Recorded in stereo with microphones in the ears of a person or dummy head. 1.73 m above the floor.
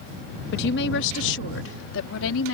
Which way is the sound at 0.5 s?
65° left (ahead or behind).